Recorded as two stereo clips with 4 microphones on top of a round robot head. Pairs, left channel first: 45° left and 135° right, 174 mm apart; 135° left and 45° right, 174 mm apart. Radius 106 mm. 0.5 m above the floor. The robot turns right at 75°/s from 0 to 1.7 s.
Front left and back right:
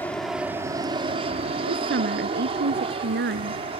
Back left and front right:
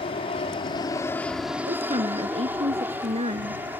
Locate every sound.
0.0 s an aircraft: 115° left; by 3.8 s 115° right
1.7 s a woman speaking: 110° right; by 3.6 s 105° right